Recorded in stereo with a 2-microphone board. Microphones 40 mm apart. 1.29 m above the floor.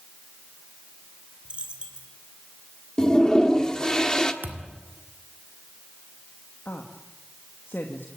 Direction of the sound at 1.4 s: 30° right (ahead or behind).